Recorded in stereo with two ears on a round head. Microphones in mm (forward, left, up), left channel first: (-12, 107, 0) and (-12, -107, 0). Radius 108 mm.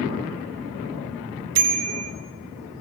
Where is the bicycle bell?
70° right (ahead or behind), 3 m.